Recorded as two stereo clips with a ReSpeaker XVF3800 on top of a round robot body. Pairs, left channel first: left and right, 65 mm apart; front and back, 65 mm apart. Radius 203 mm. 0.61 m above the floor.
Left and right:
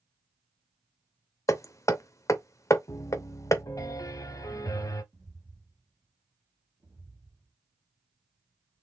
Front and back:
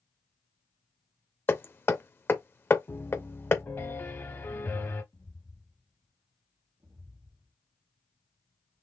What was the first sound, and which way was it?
Hammering, 55° left.